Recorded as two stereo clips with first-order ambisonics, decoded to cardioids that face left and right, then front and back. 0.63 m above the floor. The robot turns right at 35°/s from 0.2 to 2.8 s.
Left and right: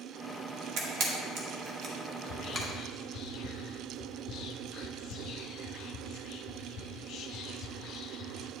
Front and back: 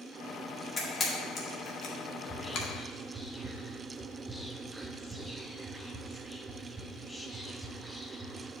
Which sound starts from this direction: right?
A camera shutter, at 0.8 s.